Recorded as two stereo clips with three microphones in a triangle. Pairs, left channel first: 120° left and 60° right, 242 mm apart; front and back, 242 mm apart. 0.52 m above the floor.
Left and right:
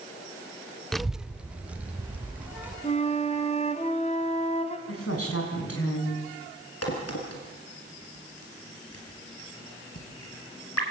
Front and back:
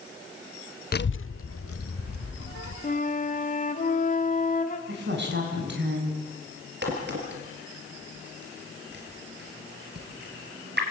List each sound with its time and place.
0.9 s a child speaking: 35° left, 0.5 m; by 2.7 s 25° left, 3.5 m
2.8 s a flute: 60° left, 1.5 m
4.9 s a woman speaking: 140° left, 5.5 m
6.8 s a crack: 135° left, 4 m